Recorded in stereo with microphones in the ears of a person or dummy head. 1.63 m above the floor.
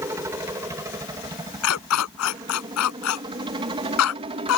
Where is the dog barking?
75° left (ahead or behind).